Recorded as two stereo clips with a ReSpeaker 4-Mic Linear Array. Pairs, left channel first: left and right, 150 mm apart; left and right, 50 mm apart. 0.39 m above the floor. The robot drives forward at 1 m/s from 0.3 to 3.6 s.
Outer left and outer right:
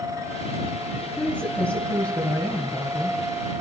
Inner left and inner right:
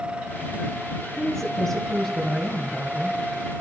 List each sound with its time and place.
1.2 s a woman speaking: 10° left (ahead or behind), 4 m; by 3.2 s 20° left (ahead or behind), 2.0 m